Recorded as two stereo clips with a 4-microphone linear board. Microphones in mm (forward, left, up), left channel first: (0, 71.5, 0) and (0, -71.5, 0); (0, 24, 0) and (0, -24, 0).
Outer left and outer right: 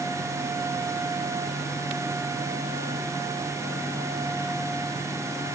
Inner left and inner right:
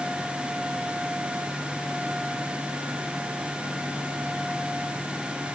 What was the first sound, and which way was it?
Only background noise.